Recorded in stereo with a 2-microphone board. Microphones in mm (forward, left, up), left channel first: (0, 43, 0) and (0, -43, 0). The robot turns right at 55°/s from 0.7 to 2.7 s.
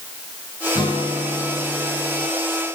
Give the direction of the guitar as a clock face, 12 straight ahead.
10 o'clock.